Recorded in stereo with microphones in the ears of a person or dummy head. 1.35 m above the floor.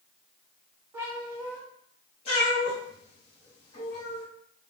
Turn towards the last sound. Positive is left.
turn(degrees=30)  # may be behind; listen again after turning